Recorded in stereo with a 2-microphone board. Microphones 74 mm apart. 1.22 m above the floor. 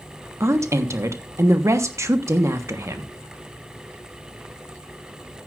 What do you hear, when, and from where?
0.4 s a woman speaking: 40° right (ahead or behind), 1.2 m